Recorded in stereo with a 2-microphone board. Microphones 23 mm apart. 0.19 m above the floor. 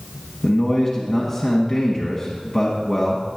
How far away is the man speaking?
About 1.4 m.